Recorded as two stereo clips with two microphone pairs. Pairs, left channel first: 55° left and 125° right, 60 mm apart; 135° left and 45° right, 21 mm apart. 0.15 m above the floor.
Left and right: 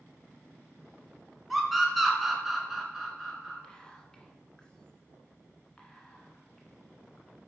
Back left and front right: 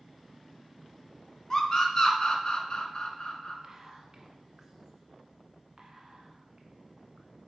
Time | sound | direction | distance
1.5 | a scream | 145° left | 1.8 m
3.6 | whispering | 5° right | 1.2 m